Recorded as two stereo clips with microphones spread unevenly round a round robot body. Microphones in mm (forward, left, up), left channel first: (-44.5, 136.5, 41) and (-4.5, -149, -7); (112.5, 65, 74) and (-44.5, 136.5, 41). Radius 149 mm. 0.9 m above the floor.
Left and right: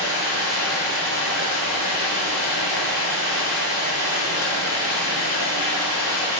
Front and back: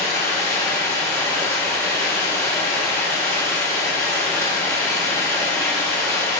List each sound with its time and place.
0.0 s running water: 50° left, 2.5 m